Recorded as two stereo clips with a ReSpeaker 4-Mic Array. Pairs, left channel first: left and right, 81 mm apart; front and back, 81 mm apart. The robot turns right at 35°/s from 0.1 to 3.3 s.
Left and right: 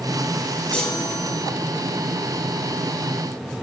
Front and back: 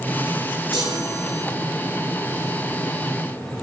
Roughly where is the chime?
Behind.